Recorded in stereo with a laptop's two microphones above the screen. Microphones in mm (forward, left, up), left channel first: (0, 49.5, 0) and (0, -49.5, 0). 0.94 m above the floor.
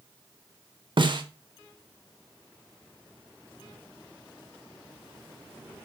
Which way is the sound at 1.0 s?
55° right (ahead or behind).